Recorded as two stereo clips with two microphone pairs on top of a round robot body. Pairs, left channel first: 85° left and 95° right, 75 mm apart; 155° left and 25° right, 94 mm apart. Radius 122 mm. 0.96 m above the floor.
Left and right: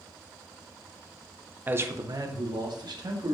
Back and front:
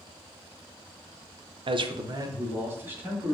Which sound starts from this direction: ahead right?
A man speaking, at 1.7 s.